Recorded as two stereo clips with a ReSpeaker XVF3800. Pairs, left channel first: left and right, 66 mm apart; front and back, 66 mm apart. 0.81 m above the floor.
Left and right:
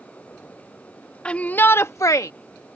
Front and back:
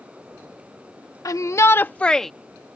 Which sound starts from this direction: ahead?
A shout, at 1.2 s.